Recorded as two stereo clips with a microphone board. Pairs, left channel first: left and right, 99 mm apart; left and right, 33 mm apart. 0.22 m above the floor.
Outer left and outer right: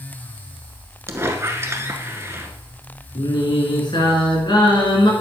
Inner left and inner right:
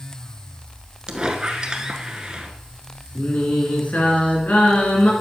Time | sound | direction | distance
1.1 | a squeak | 25° right (ahead or behind) | 1.1 m
3.1 | singing | 50° left (ahead or behind) | 2.5 m